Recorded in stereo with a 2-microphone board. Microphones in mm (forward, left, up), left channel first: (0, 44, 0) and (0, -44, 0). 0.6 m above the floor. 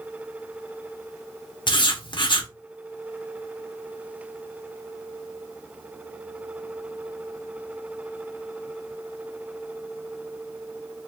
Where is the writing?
60° left (ahead or behind), 0.7 m.